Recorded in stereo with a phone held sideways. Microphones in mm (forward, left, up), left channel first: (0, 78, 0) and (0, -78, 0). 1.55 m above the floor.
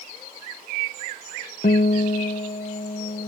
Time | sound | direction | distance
1.6 | a guitar | 70° left (ahead or behind) | ?